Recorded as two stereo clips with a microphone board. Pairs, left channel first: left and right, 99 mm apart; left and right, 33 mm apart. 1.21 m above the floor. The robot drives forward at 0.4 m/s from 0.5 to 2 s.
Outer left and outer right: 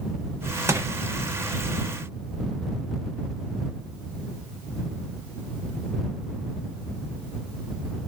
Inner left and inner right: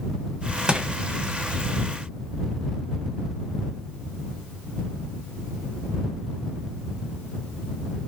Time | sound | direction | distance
0.7 | crushing | 30° right (ahead or behind) | 0.6 m